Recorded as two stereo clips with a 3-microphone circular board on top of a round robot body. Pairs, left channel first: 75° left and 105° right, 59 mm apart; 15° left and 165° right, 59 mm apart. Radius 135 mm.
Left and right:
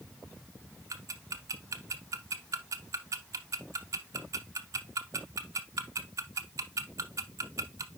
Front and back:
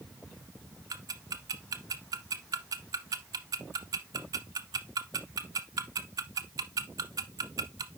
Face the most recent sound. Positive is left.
turn(degrees=-140)